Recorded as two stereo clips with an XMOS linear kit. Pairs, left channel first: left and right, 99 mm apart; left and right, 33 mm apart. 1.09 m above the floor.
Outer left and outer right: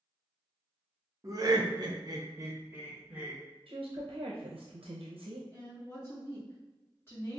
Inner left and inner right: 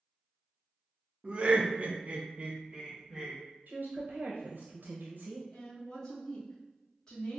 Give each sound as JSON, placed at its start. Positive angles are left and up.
{"t": 1.2, "sound": "laughter", "side_deg": -35, "distance_m": 0.7}
{"t": 3.7, "sound": "a woman speaking", "side_deg": -65, "distance_m": 0.6}
{"t": 5.5, "sound": "a woman speaking", "side_deg": 25, "distance_m": 1.3}